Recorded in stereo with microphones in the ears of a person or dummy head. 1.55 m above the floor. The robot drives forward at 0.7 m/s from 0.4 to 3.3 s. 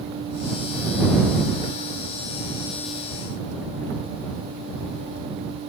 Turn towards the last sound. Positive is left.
No sound to turn to.